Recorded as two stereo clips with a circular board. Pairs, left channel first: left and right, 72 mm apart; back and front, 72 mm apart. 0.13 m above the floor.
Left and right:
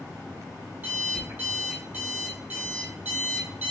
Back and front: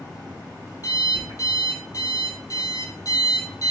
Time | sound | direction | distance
0.8 | an alarm clock | 155° right | 1.8 m